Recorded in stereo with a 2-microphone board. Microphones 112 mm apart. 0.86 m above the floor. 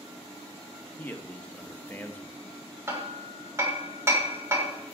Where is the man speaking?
15° left (ahead or behind), 0.8 m.